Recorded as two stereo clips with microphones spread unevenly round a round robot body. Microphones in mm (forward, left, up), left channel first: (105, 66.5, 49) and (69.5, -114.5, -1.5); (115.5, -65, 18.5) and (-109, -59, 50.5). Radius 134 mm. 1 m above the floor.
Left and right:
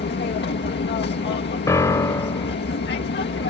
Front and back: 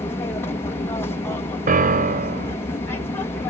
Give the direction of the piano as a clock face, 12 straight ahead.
6 o'clock.